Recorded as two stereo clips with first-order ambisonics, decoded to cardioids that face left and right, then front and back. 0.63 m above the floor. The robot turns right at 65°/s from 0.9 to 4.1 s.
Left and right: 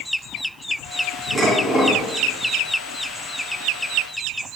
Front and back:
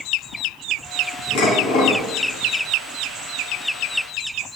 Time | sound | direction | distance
1.4 | dishes clattering | 5° left | 3 m